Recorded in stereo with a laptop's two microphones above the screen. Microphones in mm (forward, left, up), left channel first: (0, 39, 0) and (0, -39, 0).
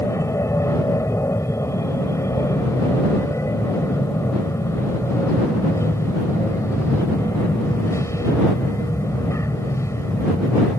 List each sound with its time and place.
0.0 s an aircraft: 40° left (ahead or behind)